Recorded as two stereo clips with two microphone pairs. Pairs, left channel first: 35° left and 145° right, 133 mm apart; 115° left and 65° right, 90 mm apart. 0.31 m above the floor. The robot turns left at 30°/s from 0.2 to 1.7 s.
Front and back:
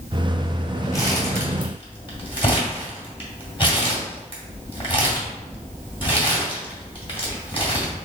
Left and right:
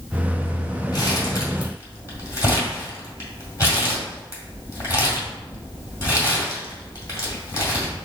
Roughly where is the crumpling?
Left.